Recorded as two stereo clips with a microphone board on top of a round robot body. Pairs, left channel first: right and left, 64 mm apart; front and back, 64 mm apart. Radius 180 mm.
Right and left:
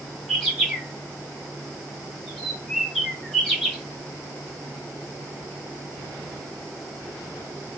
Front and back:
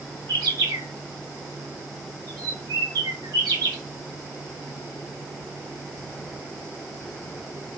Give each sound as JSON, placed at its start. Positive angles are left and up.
{"t": 0.3, "sound": "a bird", "azimuth_deg": 180, "distance_m": 1.0}